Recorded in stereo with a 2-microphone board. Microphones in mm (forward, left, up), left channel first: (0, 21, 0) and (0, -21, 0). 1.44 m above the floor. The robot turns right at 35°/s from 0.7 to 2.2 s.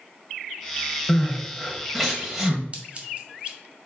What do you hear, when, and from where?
1.1 s crying: 20° left (ahead or behind), 1.6 m; by 2.6 s 5° right (ahead or behind), 1.6 m
2.7 s scissors: 30° right (ahead or behind), 1.8 m